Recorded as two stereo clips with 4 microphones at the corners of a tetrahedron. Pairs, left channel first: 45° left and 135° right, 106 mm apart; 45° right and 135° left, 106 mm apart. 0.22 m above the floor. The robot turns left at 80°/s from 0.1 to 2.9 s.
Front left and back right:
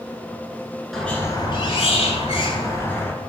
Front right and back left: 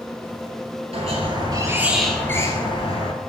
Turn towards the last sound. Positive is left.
turn(degrees=-25)